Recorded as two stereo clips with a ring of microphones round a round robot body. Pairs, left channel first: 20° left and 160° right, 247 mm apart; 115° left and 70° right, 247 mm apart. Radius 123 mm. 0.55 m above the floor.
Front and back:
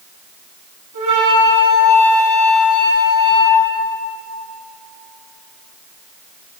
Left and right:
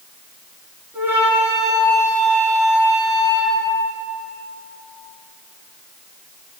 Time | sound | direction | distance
0.9 | a flute | 150° right | 4 m